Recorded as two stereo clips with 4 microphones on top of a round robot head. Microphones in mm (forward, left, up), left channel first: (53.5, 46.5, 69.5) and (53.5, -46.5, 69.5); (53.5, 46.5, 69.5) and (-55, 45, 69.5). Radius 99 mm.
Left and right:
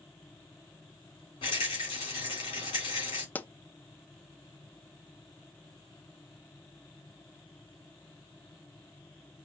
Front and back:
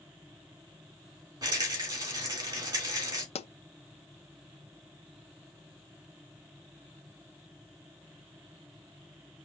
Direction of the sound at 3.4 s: 20° left.